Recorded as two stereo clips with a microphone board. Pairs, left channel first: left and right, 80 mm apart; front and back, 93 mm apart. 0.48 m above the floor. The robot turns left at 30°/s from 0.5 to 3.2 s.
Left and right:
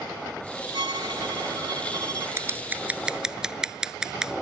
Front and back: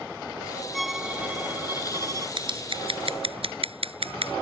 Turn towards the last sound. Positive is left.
turn(degrees=-170)